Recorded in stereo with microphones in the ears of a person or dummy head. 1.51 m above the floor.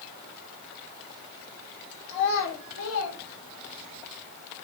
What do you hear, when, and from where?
2.1 s a child speaking: 60° left (ahead or behind), 1.4 m; by 4.0 s 70° left (ahead or behind), 1.3 m